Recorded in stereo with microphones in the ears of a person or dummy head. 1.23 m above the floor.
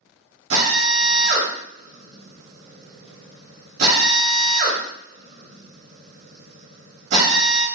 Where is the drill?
45° right (ahead or behind), 0.9 m.